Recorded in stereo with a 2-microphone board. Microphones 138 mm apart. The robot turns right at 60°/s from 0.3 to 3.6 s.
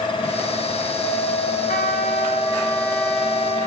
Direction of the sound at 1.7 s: 95° left.